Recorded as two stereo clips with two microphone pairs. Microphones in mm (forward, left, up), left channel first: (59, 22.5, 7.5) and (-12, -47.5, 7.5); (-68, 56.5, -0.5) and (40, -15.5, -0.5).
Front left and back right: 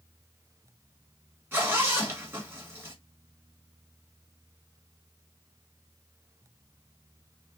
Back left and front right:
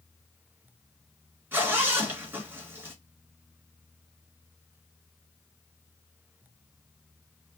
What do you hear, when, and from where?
1.5 s a zipper: 95° right, 1.8 m